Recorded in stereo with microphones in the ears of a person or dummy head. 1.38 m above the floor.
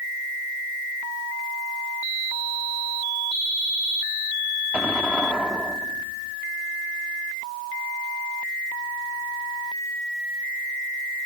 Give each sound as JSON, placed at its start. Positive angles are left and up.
{"t": 4.7, "sound": "an explosion", "side_deg": -10}